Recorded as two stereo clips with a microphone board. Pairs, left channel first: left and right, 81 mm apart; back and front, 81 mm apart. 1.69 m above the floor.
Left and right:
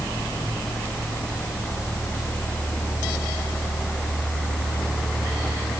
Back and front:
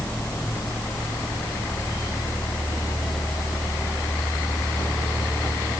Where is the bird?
No bird in this recording.